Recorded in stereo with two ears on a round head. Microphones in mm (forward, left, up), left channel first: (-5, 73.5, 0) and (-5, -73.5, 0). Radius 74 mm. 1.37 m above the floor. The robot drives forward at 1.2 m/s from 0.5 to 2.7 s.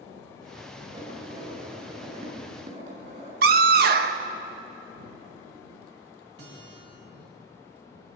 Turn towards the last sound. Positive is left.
turn(degrees=-75)  # may be behind; listen again after turning